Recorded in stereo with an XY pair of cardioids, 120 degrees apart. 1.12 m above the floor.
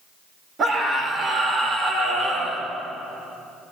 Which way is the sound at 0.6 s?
40° right.